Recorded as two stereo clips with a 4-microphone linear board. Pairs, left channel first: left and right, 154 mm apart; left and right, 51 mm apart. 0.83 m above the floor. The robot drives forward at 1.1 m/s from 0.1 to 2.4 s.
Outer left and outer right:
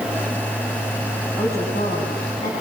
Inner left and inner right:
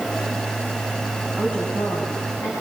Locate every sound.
1.4 s a woman speaking: 35° left (ahead or behind), 5.5 m; by 2.5 s 45° left (ahead or behind), 5 m